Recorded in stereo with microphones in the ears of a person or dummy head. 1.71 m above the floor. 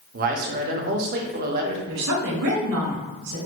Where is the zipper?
No zipper in this recording.